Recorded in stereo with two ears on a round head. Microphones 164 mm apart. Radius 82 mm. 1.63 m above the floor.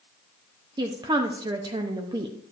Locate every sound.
0.8 s a woman speaking: 25° right (ahead or behind), 0.6 m